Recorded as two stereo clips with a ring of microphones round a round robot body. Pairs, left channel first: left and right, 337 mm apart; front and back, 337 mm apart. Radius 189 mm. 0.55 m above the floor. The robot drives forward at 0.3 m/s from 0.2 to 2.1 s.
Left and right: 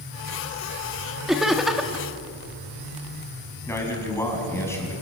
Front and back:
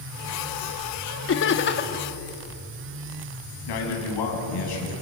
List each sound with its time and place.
1.3 s laughter: straight ahead, 1.4 m
3.7 s a man speaking: 5° left, 6 m